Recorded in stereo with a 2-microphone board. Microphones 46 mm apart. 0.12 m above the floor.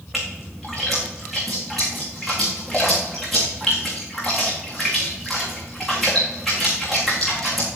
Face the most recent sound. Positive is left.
turn(degrees=0)  # may be behind; listen again after turning